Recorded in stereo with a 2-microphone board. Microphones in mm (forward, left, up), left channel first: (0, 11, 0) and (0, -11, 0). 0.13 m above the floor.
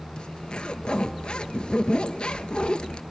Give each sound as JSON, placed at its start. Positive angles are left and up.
{"t": 0.2, "sound": "a zipper", "side_deg": 50, "distance_m": 0.7}